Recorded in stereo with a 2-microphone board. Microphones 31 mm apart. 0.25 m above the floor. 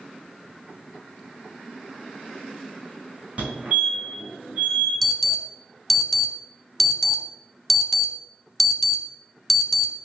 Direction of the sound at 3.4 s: 45° right (ahead or behind).